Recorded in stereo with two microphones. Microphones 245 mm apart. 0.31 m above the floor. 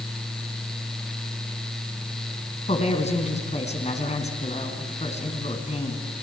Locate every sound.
2.7 s a woman speaking: 25° left (ahead or behind), 3.5 m